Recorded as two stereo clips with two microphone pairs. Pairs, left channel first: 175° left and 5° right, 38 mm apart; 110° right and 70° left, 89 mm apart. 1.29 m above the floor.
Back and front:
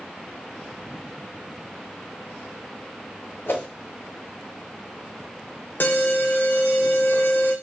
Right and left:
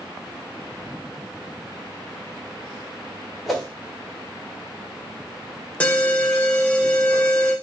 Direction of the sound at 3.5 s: 165° left.